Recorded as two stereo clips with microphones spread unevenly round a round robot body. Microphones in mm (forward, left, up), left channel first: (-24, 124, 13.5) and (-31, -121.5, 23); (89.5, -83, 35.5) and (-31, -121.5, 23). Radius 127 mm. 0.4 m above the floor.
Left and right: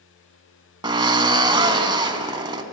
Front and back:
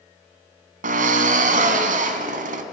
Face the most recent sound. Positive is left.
turn(degrees=-165)